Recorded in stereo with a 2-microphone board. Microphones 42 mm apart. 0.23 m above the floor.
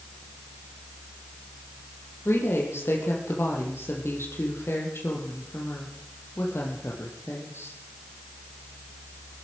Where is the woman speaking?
80° left, 6.5 m.